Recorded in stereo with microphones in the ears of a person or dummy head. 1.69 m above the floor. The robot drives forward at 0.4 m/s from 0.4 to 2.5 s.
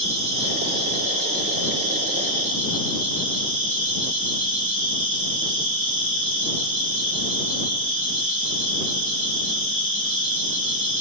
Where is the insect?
80° right, 3 m; by 11.0 s 70° right (ahead or behind), 3 m.